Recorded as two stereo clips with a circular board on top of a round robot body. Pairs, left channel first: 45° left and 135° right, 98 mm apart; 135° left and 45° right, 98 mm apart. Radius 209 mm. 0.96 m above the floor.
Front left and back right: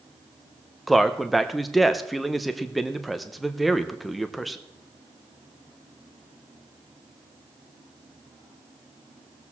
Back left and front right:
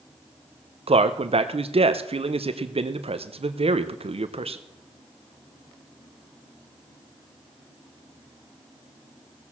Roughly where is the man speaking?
Ahead right.